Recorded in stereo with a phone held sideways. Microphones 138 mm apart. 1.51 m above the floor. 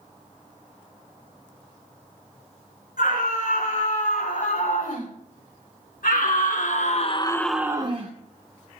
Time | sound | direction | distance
3.0 | a scream | 85° left | 6 m